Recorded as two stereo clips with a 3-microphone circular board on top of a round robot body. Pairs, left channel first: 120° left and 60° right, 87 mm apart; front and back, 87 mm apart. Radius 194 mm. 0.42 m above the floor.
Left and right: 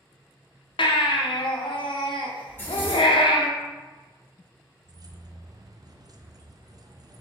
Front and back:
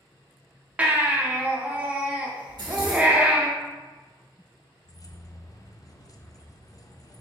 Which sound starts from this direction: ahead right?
Keys jangling, at 4.8 s.